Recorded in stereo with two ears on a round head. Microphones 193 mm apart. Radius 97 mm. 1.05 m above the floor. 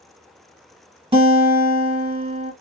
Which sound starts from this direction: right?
A guitar, at 1.1 s.